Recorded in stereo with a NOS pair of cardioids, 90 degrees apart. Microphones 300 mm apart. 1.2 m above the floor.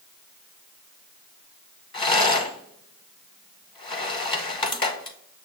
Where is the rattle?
15° left, 0.9 m.